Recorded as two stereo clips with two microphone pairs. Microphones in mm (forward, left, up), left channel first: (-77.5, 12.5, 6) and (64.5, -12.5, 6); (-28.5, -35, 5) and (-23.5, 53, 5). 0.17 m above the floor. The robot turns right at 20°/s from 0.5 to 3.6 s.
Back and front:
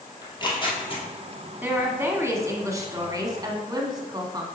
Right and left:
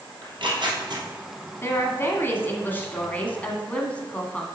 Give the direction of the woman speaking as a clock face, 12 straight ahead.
2 o'clock.